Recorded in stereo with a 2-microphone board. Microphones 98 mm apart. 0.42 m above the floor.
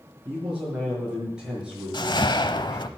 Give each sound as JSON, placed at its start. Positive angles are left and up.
{"t": 0.2, "sound": "a man speaking", "side_deg": -10, "distance_m": 7.5}
{"t": 1.9, "sound": "a whoosh", "side_deg": 50, "distance_m": 0.8}